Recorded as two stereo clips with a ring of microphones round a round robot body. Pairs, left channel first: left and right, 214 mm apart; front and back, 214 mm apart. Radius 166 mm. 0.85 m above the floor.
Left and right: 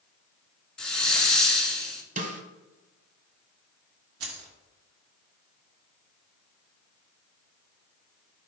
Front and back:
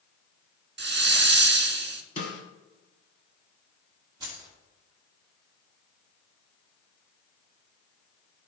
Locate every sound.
0.8 s a hiss: 175° left, 1.2 m
2.2 s a snare drum: 55° right, 0.9 m
4.2 s keys jangling: 105° right, 1.5 m